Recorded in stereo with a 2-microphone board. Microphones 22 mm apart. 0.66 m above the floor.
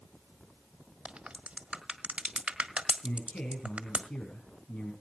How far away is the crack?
About 1.4 m.